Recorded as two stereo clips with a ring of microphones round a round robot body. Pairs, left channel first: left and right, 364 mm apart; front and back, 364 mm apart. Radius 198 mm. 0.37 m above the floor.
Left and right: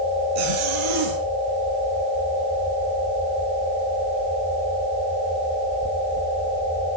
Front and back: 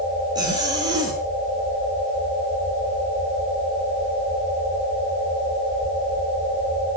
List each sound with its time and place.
0.3 s a zipper: 100° right, 7.5 m